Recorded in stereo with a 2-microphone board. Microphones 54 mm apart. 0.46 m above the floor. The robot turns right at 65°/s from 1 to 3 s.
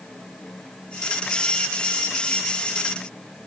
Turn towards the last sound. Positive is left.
No sound to turn to.